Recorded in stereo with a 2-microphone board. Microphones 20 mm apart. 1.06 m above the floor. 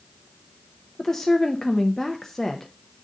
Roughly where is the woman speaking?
Left.